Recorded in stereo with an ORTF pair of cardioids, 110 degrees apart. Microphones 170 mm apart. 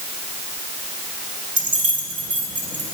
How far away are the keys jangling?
About 4.5 m.